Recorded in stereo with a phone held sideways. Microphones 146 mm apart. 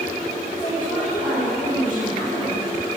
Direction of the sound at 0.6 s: 90° left.